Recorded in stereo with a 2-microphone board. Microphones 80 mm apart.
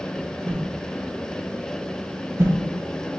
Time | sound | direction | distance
0.5 | a whoosh | 30° right (ahead or behind) | 0.5 m